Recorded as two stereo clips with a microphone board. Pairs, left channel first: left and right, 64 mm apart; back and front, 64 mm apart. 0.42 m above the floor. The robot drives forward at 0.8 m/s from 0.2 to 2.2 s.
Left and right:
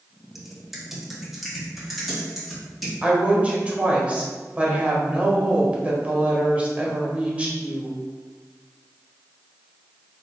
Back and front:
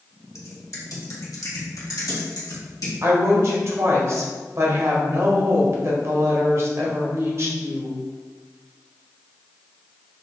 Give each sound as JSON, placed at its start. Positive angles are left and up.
{"t": 0.3, "sound": "typing on a keyboard", "azimuth_deg": -175, "distance_m": 0.9}
{"t": 3.0, "sound": "a woman speaking", "azimuth_deg": -25, "distance_m": 1.3}